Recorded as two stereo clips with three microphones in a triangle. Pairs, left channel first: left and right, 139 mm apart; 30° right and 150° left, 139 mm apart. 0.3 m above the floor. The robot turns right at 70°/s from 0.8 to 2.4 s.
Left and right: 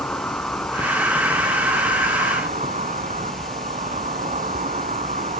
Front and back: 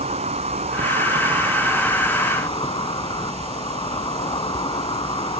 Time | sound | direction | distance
0.0 | an insect | 170° left | 0.8 m